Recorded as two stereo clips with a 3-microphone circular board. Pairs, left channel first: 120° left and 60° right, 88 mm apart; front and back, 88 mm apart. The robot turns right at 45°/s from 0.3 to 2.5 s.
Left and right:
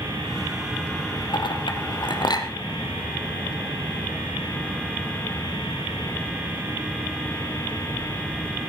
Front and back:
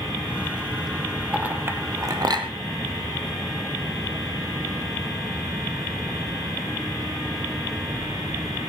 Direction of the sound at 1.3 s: 105° left.